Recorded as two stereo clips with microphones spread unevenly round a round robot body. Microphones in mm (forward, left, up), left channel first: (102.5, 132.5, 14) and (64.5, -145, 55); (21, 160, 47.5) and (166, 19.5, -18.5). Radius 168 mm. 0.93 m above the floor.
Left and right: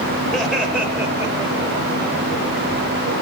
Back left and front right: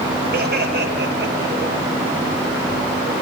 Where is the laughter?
5° right, 5.5 m; by 1.8 s 25° right, 4.5 m.